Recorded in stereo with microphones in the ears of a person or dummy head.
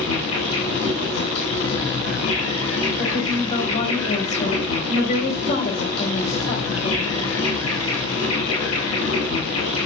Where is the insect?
90° left, 7.5 m.